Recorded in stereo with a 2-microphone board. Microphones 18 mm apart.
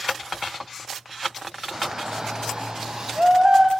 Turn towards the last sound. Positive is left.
turn(degrees=-55)  # may be behind; listen again after turning